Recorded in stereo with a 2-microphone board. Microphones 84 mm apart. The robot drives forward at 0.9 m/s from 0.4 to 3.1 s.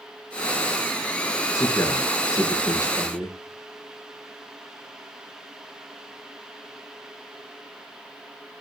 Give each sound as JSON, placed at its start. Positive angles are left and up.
{"t": 1.5, "sound": "a man speaking", "side_deg": 35, "distance_m": 6.5}